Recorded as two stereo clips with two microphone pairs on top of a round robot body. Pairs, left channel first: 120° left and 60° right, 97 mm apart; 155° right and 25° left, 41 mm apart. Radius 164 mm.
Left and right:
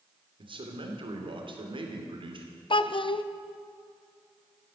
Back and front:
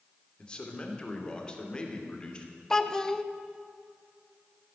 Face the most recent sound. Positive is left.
turn(degrees=125)